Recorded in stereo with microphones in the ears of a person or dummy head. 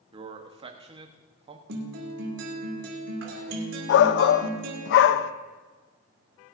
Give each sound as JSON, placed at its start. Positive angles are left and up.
{"t": 0.1, "sound": "a man speaking", "side_deg": -30, "distance_m": 1.2}
{"t": 1.7, "sound": "a guitar", "side_deg": -75, "distance_m": 2.5}
{"t": 3.9, "sound": "a shout", "side_deg": 70, "distance_m": 0.8}